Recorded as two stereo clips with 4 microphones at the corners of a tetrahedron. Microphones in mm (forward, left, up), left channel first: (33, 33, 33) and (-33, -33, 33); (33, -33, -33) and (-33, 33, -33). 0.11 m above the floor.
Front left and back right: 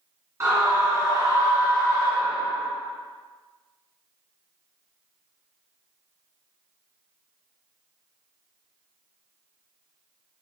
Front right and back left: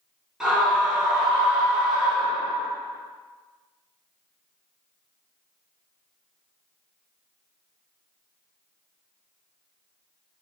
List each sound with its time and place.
0.4 s a scream: 145° right, 1.7 m